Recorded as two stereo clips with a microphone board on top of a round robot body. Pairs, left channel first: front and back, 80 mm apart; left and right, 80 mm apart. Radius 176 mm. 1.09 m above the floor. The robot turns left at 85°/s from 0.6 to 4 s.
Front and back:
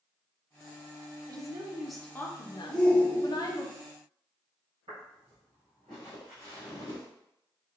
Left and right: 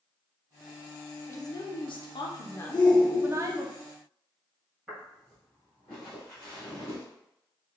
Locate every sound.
1.3 s a woman speaking: 145° left, 0.6 m; by 3.7 s 65° right, 0.6 m
2.7 s a shout: 85° left, 1.0 m; by 3.6 s 10° left, 1.0 m
4.9 s footsteps: 170° right, 1.6 m; by 7.0 s 125° left, 1.3 m